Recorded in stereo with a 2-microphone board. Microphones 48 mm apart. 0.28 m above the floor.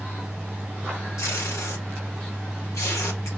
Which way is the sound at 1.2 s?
80° left.